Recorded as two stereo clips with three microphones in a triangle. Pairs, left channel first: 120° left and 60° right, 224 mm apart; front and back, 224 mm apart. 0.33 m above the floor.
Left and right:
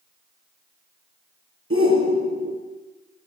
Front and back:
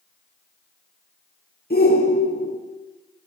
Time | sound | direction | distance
1.7 | a shout | 45° right | 5.5 m